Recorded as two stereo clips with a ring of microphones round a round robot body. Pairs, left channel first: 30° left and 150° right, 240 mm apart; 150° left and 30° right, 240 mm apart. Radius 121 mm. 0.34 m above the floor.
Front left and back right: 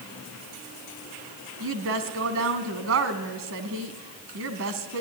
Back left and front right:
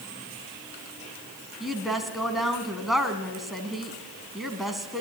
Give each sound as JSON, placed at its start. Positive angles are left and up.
{"t": 1.6, "sound": "a woman speaking", "azimuth_deg": -120, "distance_m": 2.5}